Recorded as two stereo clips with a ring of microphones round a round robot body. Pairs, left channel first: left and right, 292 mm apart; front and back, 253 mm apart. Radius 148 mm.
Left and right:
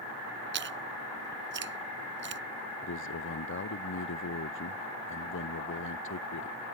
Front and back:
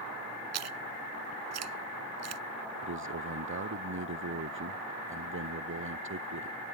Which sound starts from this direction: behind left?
A man speaking, at 2.8 s.